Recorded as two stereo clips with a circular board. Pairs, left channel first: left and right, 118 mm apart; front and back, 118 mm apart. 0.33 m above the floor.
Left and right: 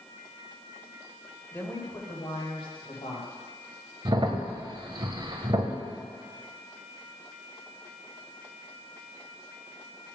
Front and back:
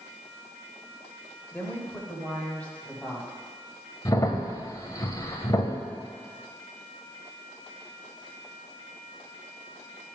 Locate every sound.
1.5 s a woman speaking: 35° left, 1.0 m; by 3.3 s 80° left, 1.9 m
4.0 s a crack: 50° right, 0.6 m